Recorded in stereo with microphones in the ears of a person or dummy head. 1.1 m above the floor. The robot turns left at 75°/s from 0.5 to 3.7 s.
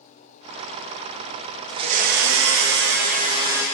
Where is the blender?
25° right, 0.8 m; by 3.6 s 170° right, 0.8 m.